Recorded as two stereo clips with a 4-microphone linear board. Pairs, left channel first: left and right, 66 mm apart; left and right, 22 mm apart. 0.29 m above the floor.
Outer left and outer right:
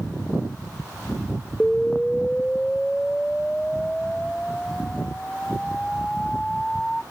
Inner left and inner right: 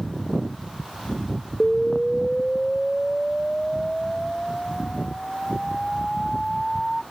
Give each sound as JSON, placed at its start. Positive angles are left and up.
{"t": 1.6, "sound": "an explosion", "side_deg": 10}